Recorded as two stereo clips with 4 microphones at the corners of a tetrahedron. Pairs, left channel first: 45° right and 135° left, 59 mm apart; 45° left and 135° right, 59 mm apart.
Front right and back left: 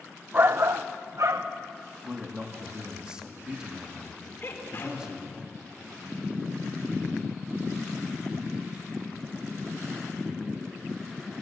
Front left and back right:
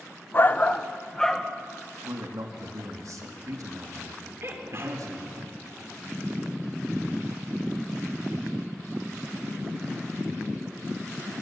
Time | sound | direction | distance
0.3 | a shout | 85° left | 0.6 m
2.0 | a man speaking | 150° right | 2.5 m
4.4 | a sneeze | 90° right | 4.5 m